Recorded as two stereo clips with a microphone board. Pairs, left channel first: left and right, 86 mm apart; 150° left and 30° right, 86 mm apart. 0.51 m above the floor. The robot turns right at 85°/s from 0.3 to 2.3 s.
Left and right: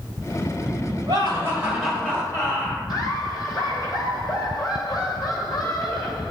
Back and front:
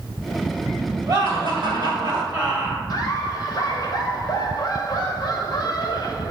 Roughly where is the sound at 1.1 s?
Ahead right.